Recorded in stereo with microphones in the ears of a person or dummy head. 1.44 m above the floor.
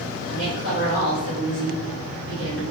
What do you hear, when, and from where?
0.3 s a woman speaking: 70° right (ahead or behind), 0.9 m